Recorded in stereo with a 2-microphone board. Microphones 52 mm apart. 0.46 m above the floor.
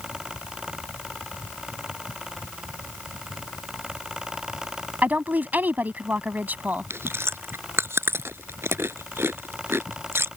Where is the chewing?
55° right (ahead or behind).